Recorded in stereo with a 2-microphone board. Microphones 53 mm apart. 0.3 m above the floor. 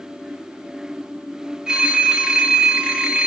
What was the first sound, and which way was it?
A phone ringing, 10° right (ahead or behind).